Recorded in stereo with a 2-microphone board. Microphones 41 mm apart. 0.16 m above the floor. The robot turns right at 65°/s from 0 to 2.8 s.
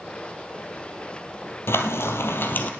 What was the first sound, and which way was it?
Frying, 70° left.